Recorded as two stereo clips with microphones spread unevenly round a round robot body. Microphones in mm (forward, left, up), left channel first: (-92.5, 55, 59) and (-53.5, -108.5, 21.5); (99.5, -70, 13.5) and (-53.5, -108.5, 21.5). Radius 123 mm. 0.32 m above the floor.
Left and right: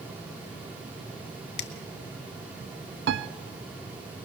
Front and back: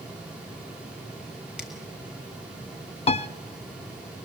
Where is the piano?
40° right, 0.6 m.